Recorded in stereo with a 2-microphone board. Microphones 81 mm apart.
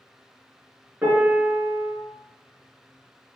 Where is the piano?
25° right (ahead or behind), 2 m.